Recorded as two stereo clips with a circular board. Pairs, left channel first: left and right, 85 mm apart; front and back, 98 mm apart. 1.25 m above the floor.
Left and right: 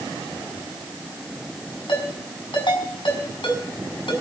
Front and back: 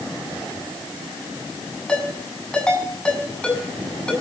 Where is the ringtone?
80° left, 7 m.